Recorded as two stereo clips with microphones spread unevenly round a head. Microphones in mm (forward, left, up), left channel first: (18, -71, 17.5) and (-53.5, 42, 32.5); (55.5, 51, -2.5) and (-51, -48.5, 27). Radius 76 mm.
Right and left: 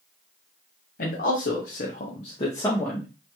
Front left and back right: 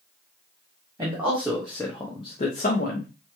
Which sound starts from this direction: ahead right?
A man speaking, at 1.0 s.